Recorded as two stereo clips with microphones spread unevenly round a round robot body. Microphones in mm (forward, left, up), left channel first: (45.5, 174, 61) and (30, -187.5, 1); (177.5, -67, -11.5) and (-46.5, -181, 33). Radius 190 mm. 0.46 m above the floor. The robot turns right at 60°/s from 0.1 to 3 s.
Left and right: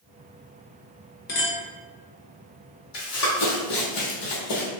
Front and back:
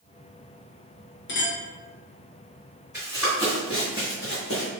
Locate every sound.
1.3 s a clink: 20° left, 0.8 m; by 1.6 s 40° left, 0.8 m
2.9 s running footsteps: 120° left, 1.2 m; by 4.7 s 75° left, 1.1 m